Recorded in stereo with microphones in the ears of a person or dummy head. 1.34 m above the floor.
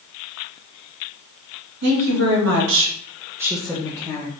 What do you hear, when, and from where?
1.8 s a woman speaking: 60° right (ahead or behind), 1.5 m; by 4.3 s 25° left (ahead or behind), 1.1 m